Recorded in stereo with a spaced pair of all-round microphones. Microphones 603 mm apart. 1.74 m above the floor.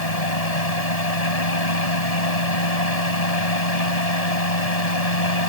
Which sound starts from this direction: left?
A fan, at 0.0 s.